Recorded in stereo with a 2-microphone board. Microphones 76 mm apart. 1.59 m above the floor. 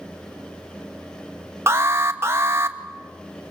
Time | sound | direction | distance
1.7 | an alarm | 35° right (ahead or behind) | 1.1 m